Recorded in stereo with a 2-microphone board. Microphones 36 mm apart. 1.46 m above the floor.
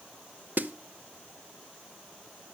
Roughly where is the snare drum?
Right.